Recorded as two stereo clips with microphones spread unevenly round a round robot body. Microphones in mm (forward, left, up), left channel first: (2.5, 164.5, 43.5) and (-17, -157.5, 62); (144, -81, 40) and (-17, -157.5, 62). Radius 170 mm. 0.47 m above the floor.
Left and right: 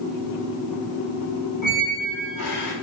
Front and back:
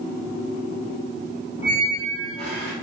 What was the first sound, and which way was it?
A squeak, 80° left.